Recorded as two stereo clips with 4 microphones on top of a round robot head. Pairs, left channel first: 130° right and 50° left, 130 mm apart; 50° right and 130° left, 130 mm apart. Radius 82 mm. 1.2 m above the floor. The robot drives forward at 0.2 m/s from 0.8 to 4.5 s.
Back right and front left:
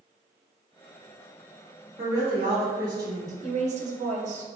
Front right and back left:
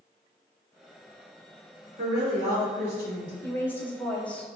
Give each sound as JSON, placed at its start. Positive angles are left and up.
{"t": 2.0, "sound": "a woman speaking", "azimuth_deg": 110, "distance_m": 1.6}
{"t": 3.4, "sound": "a woman speaking", "azimuth_deg": 20, "distance_m": 0.7}